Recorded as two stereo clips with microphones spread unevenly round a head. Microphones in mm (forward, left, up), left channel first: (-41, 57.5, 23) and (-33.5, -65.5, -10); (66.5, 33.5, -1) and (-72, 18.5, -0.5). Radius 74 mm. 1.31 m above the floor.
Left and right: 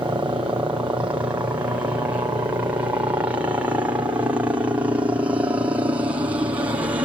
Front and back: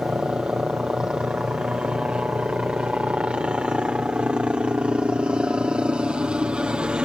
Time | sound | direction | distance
0.0 | a helicopter | 100° right | ?